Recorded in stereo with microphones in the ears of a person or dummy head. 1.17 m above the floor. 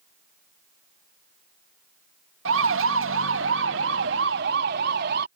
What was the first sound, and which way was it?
A siren, 70° right (ahead or behind).